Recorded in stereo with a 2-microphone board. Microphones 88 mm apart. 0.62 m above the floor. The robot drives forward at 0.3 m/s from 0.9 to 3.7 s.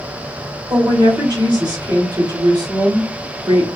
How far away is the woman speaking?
About 1.2 m.